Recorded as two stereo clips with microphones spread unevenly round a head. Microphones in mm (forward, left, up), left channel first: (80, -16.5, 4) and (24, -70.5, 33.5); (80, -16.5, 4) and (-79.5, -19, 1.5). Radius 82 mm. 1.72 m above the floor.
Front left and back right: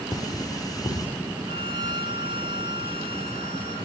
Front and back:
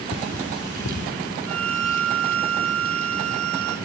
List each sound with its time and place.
0.1 s cutlery clinking: straight ahead, 3 m
1.5 s a violin: 170° left, 2.5 m